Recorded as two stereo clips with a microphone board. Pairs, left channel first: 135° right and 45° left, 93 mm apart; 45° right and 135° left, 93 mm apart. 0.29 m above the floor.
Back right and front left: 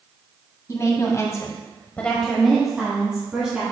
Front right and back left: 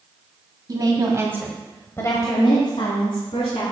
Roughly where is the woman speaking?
Behind.